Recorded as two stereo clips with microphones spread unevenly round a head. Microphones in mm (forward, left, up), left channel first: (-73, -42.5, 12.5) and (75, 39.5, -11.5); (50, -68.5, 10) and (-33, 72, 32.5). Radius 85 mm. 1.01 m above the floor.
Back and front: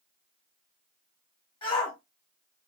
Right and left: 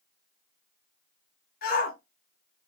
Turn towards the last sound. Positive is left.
turn(degrees=-85)